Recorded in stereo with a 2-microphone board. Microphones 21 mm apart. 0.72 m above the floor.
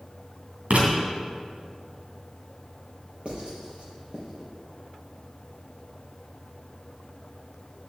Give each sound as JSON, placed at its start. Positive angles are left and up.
{"t": 0.7, "sound": "writing", "side_deg": -85, "distance_m": 3.0}
{"t": 3.2, "sound": "writing", "side_deg": -50, "distance_m": 4.0}